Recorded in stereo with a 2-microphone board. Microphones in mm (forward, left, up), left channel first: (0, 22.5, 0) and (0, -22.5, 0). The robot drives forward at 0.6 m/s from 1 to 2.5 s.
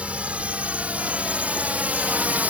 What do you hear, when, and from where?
0.0 s a drone: 30° right (ahead or behind); by 2.5 s 35° right (ahead or behind)